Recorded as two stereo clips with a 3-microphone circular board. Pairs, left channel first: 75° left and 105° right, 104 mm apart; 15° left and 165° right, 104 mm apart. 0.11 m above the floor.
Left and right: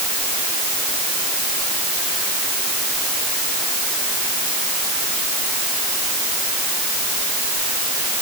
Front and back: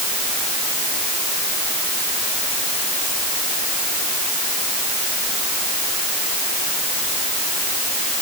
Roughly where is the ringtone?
I don't hear a ringtone.